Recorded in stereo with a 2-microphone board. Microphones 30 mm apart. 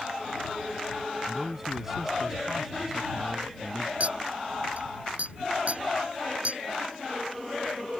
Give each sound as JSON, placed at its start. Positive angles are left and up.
{"t": 1.3, "sound": "a man speaking", "side_deg": -10}
{"t": 4.0, "sound": "a clink", "side_deg": -55}